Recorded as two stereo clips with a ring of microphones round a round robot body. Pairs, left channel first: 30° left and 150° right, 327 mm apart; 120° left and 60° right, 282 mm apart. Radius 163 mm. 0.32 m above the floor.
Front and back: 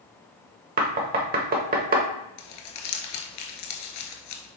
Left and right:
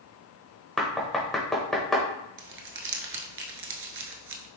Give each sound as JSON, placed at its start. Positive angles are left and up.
{"t": 0.8, "sound": "knocking", "azimuth_deg": -155, "distance_m": 0.8}
{"t": 2.4, "sound": "crumpling", "azimuth_deg": -15, "distance_m": 0.9}